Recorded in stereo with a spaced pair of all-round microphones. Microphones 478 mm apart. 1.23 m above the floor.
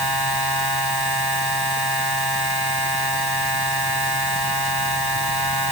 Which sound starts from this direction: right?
A machine running, at 0.0 s.